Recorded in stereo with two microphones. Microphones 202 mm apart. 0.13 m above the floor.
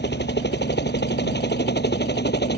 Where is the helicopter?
55° left (ahead or behind).